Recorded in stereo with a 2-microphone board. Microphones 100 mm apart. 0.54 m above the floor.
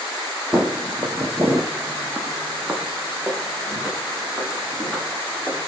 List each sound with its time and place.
0.5 s footsteps: 25° right (ahead or behind), 0.7 m; by 5.7 s 5° right (ahead or behind), 2.5 m